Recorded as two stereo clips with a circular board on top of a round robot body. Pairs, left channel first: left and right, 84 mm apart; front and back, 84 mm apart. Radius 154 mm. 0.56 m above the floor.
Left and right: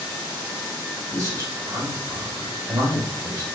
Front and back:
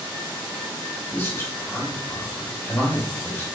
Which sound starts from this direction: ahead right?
A man speaking, at 1.1 s.